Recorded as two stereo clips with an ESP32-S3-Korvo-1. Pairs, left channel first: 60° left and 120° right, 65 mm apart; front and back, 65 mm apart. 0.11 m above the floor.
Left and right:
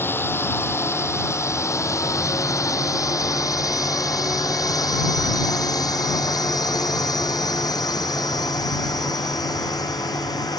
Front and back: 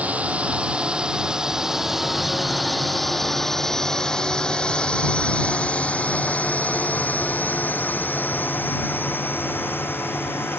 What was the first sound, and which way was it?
A drone, 110° left.